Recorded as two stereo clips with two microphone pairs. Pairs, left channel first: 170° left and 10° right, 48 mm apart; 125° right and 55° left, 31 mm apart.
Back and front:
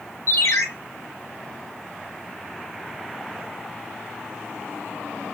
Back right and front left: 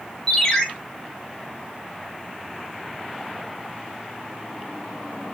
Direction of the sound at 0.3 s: 160° left.